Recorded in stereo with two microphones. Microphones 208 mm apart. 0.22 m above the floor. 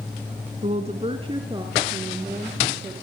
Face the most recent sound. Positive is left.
turn(degrees=-15)  # may be behind; listen again after turning